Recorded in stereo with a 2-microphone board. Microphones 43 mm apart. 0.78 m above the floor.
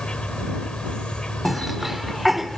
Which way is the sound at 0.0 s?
20° left (ahead or behind).